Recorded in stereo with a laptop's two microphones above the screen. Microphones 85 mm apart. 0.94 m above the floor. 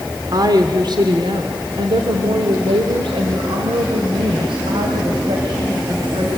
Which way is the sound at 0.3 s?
50° right (ahead or behind).